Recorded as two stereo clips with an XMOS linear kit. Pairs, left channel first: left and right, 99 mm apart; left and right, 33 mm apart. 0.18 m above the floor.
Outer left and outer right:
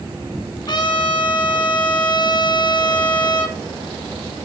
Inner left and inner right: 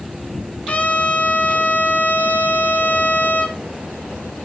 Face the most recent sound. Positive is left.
turn(degrees=50)  # may be behind; listen again after turning